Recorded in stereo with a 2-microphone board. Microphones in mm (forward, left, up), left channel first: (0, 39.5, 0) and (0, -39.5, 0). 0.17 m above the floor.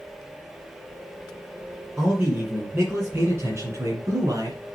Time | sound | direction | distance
2.0 | a man speaking | 15° right (ahead or behind) | 2.5 m